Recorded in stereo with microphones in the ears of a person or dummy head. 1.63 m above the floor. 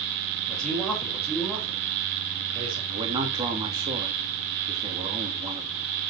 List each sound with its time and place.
0.5 s a man speaking: centre (ahead or behind), 5 m; by 2.8 s 30° right (ahead or behind), 4.5 m
2.9 s a man speaking: 25° right (ahead or behind), 2.5 m